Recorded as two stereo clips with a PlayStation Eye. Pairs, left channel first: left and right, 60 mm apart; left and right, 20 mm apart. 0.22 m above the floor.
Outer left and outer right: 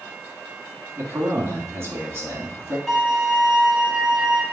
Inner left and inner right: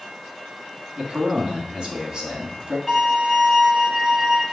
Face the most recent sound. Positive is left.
turn(degrees=0)  # may be behind; listen again after turning